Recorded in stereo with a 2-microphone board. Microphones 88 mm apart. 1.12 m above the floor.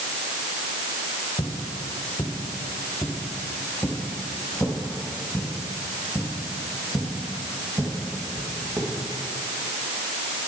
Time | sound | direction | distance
1.4 | footsteps | 55° left (ahead or behind) | 3.5 m